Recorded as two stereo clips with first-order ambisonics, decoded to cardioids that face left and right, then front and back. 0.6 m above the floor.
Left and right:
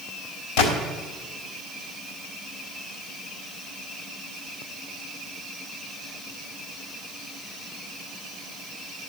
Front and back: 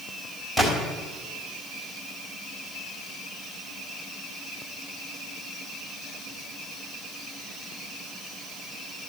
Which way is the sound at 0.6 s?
75° left.